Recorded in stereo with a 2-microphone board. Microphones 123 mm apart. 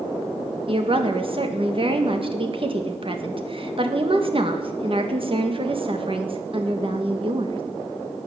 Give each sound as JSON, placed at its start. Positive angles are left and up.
{"t": 0.7, "sound": "a woman speaking", "side_deg": -50, "distance_m": 1.8}